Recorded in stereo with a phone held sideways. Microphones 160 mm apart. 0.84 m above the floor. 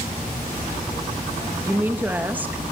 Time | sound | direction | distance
1.6 | a woman speaking | 10° right (ahead or behind) | 1.0 m